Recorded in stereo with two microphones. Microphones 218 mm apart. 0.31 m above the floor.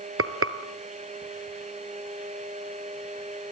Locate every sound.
0.2 s frying: 85° right, 1.5 m